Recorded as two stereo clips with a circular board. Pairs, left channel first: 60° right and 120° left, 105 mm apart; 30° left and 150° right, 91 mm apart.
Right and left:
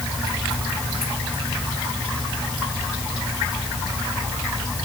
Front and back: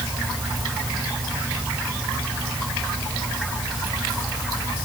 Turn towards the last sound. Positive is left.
No sound to turn to.